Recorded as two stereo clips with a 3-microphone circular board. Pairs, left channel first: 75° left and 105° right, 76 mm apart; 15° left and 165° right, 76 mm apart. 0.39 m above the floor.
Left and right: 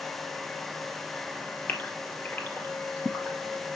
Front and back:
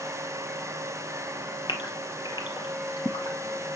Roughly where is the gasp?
Ahead.